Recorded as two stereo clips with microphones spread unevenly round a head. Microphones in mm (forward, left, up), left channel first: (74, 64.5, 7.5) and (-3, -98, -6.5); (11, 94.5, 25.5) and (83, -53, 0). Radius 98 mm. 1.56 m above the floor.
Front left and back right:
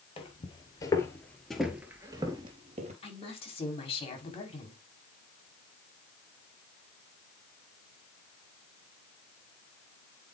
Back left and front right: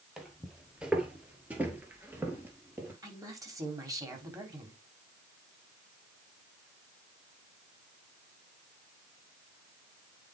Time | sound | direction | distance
0.2 | footsteps | 30° left | 2 m
3.0 | a woman speaking | 5° left | 3.5 m